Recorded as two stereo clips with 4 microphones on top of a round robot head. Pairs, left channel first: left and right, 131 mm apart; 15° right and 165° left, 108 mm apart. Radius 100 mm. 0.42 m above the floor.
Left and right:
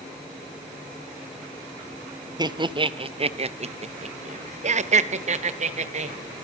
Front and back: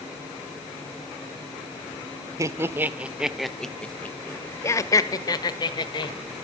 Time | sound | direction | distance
2.4 | laughter | 140° right | 1.3 m